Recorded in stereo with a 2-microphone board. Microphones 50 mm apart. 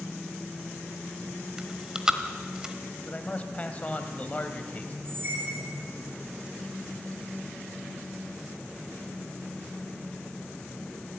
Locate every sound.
1.6 s chewing: 15° right (ahead or behind), 1.3 m
3.0 s a man speaking: 30° left (ahead or behind), 1.8 m
5.0 s a squeak: 45° right (ahead or behind), 3 m